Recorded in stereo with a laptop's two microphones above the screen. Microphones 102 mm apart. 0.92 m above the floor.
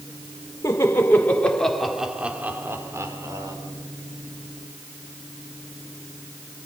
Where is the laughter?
30° left (ahead or behind), 3.5 m; by 3.5 s 40° right (ahead or behind), 3.5 m.